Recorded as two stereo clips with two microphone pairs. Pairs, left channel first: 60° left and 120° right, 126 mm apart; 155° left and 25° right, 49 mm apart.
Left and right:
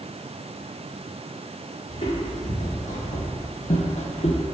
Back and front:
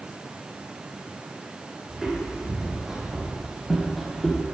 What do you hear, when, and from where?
1.9 s footsteps: 50° left, 3 m; by 4.4 s 70° left, 1.5 m